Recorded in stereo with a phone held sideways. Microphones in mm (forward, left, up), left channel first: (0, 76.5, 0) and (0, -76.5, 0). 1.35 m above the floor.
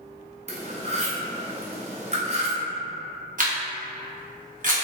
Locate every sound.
0.5 s cutlery clinking: 45° right (ahead or behind), 0.6 m
3.4 s a camera shutter: 55° right (ahead or behind), 0.7 m